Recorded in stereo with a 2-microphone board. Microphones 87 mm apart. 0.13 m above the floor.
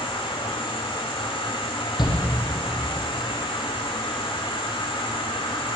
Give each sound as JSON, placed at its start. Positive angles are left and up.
{"t": 0.0, "sound": "an insect", "side_deg": 85, "distance_m": 3.5}
{"t": 2.0, "sound": "a shout", "side_deg": 55, "distance_m": 4.5}